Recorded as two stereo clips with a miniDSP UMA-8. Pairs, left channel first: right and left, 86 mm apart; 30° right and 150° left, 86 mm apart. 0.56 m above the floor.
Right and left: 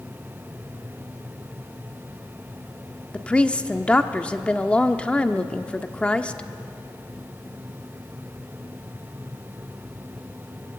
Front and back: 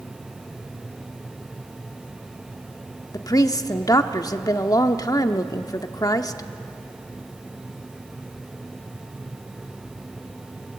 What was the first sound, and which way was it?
A woman speaking, 20° right.